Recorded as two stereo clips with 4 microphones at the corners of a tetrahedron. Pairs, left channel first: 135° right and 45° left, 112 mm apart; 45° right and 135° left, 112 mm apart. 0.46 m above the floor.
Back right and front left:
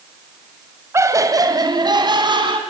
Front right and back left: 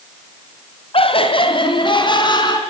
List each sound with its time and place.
0.9 s laughter: 15° right, 2 m; by 2.6 s 5° left, 4 m